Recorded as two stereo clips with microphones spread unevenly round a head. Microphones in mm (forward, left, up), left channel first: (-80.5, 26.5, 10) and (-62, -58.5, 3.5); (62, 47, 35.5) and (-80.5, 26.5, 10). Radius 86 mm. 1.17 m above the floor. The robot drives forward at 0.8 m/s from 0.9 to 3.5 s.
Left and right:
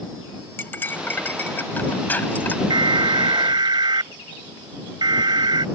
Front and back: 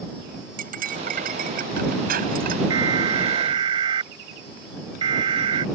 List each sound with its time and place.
0.6 s cutlery clinking: 165° left; by 2.6 s 170° left
2.7 s an alarm: 105° right; by 5.7 s 110° right